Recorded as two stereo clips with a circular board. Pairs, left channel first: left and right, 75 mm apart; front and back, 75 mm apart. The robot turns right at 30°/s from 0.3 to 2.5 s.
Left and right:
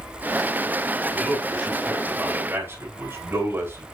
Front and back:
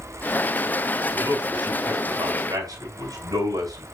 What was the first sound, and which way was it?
A man speaking, 170° left.